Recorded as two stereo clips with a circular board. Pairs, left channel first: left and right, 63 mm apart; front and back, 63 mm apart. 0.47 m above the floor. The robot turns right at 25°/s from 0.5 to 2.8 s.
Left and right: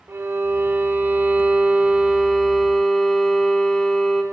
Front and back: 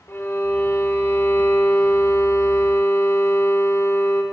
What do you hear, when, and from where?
0.1 s a violin: 45° right, 0.9 m; by 4.2 s 10° left, 0.9 m